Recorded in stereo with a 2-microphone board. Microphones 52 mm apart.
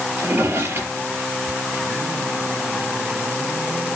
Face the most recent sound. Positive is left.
turn(degrees=-55)  # may be behind; listen again after turning